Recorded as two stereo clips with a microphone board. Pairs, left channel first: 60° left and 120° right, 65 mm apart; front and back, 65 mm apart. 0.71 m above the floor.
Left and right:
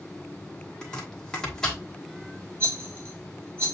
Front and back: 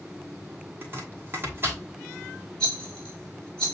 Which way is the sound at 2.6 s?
70° right.